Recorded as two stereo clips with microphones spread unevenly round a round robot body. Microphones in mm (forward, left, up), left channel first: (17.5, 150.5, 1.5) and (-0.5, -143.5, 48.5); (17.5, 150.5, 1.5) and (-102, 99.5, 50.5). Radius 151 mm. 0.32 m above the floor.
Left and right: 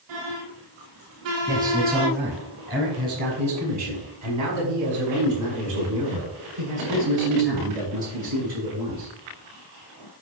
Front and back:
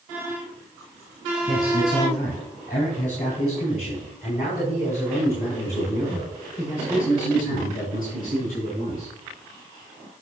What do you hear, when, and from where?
1.5 s a man speaking: 25° right, 4 m; by 9.1 s 90° right, 8.5 m